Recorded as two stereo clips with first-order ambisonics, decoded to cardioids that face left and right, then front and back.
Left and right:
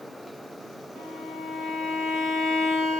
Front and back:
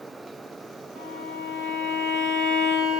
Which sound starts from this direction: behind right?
A violin, at 0.9 s.